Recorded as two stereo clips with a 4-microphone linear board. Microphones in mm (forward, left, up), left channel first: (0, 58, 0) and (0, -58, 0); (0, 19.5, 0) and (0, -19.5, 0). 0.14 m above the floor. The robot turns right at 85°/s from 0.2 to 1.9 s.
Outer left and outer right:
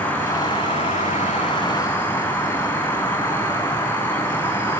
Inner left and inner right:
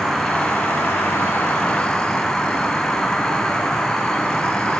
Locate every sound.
0.0 s an insect: 15° left, 3.5 m; by 4.8 s 160° left, 3.5 m